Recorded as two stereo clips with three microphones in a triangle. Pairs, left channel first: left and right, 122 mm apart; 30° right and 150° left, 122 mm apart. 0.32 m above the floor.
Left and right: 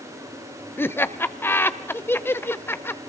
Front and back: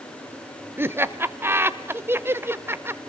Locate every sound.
0.8 s laughter: 125° left, 0.8 m